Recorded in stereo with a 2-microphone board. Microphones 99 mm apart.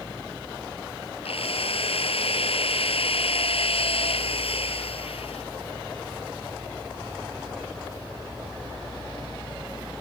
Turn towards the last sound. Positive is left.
turn(degrees=80)